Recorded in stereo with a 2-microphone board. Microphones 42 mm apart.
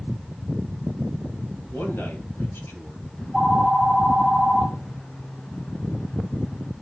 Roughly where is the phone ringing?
Left.